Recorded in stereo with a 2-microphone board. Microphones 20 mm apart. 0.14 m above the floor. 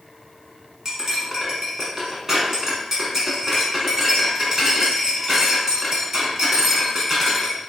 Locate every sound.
0.8 s cutlery clinking: 25° right (ahead or behind), 0.8 m